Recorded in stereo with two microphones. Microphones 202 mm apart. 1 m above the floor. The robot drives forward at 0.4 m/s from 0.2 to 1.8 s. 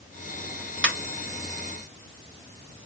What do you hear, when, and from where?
0.8 s a ringtone: 80° right, 1.5 m; by 0.9 s 85° right, 1.5 m